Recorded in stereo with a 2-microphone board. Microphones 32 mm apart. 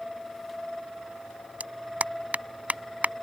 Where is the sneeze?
No sneeze in this recording.